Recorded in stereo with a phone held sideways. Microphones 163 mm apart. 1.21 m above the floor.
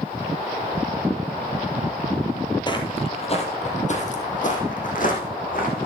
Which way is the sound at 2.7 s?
30° left (ahead or behind).